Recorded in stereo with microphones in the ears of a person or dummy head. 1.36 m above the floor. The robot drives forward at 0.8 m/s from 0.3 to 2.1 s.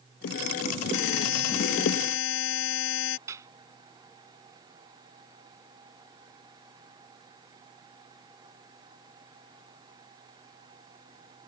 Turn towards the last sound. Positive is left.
turn(degrees=-20)  # may be behind; listen again after turning